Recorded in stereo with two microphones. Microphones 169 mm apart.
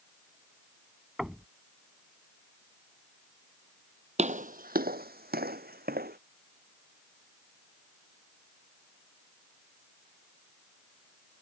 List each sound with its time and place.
1.2 s knocking: centre (ahead or behind)
4.2 s footsteps: 45° right (ahead or behind); by 6.2 s 65° right (ahead or behind)